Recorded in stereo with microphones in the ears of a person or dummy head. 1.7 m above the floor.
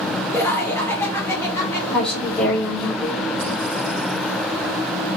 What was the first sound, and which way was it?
Laughter, 5° left (ahead or behind).